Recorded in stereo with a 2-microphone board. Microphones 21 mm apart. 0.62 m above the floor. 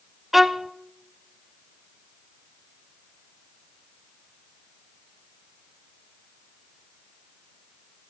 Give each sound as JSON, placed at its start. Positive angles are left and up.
{"t": 0.3, "sound": "a violin", "side_deg": -10, "distance_m": 0.6}